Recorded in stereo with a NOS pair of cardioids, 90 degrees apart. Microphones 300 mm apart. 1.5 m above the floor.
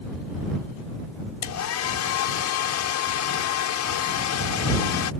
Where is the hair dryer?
70° left.